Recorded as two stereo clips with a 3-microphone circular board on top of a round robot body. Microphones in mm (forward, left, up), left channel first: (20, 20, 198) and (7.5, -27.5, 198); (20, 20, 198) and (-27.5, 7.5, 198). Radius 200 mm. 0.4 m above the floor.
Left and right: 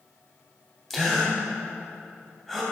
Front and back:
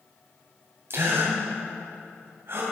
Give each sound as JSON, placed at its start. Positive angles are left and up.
{"t": 0.9, "sound": "a gasp", "azimuth_deg": 160, "distance_m": 2.5}